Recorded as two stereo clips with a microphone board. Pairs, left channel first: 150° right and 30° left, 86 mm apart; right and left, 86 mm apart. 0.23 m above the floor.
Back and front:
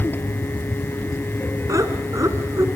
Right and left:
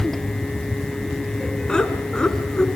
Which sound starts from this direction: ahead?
Laughter, at 1.7 s.